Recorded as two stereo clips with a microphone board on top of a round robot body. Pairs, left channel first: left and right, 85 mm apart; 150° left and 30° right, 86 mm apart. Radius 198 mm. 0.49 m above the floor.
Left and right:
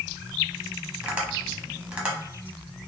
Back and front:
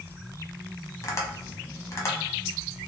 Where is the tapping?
165° right, 1.2 m.